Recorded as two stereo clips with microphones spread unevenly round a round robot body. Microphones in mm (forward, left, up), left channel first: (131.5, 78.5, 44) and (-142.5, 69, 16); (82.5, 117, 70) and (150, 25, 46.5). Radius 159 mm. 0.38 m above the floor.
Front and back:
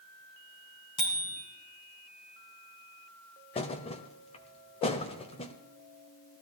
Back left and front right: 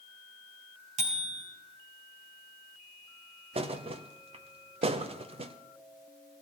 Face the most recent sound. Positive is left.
turn(degrees=-70)